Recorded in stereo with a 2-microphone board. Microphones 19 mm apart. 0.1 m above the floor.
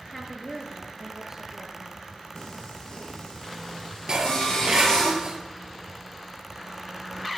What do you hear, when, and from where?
0.1 s a woman speaking: 15° left (ahead or behind), 1.3 m; by 2.0 s 35° right (ahead or behind), 1.8 m
2.4 s singing: 50° left (ahead or behind), 4 m
4.1 s dishes clattering: 40° right (ahead or behind), 1.1 m